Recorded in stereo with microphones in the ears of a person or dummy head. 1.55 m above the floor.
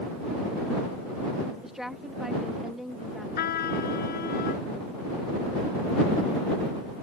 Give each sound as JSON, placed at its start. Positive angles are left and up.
{"t": 1.6, "sound": "a woman speaking", "side_deg": -5}
{"t": 3.4, "sound": "a trumpet", "side_deg": 50}